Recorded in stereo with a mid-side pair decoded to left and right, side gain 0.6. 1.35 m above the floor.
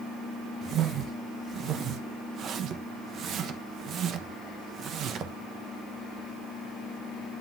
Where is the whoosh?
50° right, 1.1 m.